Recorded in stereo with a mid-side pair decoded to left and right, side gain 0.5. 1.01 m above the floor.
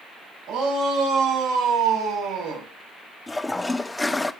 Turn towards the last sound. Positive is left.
turn(degrees=15)